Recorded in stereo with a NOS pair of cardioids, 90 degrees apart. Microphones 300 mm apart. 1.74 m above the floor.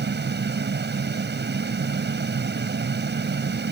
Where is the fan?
35° right.